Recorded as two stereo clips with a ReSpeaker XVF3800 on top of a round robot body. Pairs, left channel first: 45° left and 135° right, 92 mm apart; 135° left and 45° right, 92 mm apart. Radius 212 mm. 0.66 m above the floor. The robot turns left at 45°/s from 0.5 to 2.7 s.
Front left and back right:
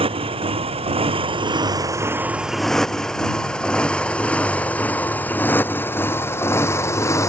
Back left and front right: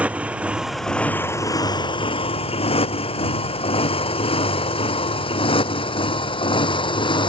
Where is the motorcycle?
120° right; by 7.3 s 105° left.